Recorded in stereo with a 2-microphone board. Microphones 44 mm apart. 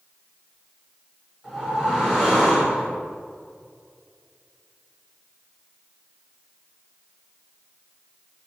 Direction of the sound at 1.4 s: 10° right (ahead or behind).